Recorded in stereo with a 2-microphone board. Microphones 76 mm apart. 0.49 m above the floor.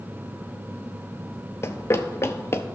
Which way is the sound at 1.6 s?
35° left (ahead or behind).